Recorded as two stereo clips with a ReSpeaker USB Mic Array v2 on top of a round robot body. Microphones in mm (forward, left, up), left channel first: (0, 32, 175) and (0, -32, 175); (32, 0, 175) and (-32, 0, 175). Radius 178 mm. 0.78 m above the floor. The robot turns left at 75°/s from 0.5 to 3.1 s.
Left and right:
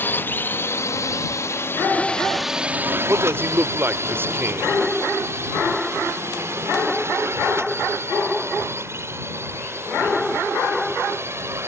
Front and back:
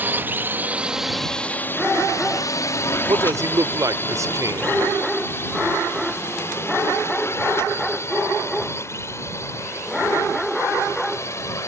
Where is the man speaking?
145° right.